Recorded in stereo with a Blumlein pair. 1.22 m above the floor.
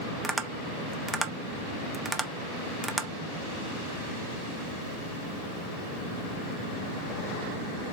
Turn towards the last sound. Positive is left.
turn(degrees=-10)